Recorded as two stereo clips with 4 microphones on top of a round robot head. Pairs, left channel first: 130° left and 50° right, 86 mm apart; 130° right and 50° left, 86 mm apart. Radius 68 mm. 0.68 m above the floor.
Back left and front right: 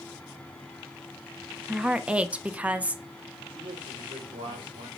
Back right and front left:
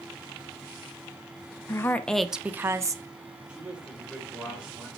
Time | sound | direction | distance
1.7 | a woman speaking | 125° right | 0.8 m
3.5 | a man speaking | 30° right | 3.5 m